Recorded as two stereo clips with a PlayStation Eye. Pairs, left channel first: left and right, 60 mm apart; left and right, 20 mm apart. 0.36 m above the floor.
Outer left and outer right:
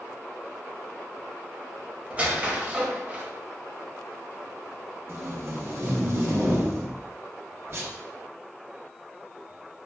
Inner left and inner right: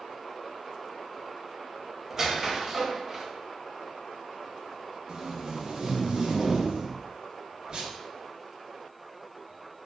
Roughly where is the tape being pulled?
Right.